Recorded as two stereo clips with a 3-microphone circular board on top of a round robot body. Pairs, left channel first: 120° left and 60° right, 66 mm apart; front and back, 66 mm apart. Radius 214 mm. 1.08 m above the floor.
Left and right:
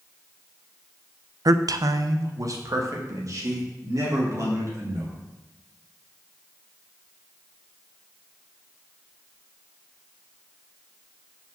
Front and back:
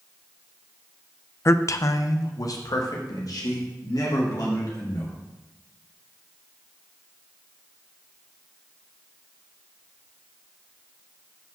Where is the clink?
I don't hear a clink.